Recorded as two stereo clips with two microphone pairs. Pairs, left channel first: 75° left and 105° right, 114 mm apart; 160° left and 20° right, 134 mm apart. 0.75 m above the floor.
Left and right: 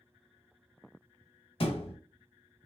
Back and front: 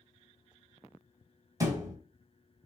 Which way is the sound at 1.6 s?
40° left.